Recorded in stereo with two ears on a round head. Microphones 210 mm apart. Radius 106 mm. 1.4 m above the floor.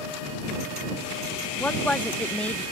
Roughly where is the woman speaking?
Centre.